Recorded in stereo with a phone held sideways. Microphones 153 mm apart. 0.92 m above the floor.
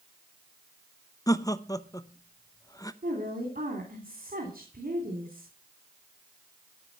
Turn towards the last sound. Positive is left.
turn(degrees=-75)  # may be behind; listen again after turning